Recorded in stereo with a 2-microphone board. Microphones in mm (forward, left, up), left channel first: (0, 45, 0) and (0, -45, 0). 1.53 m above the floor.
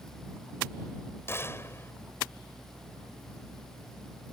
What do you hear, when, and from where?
1.3 s a gunshot: 30° left (ahead or behind)